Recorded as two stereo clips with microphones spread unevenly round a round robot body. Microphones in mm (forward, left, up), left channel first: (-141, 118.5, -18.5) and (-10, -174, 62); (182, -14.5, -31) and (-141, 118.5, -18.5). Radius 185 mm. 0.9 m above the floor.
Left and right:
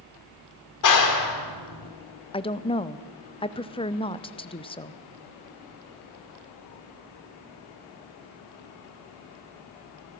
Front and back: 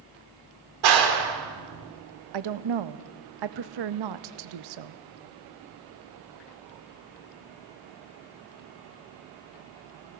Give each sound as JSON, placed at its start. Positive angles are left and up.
{"t": 0.8, "sound": "a clap", "azimuth_deg": 140, "distance_m": 2.0}
{"t": 2.3, "sound": "a woman speaking", "azimuth_deg": 180, "distance_m": 0.6}